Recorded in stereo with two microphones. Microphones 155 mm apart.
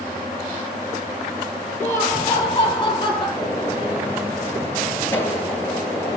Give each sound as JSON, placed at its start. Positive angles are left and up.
{"t": 1.8, "sound": "laughter", "side_deg": 20, "distance_m": 2.5}
{"t": 3.4, "sound": "a gunshot", "side_deg": 15, "distance_m": 1.9}